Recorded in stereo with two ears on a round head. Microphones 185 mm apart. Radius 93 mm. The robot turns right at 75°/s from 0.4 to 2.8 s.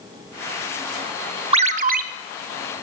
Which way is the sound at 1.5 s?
135° right.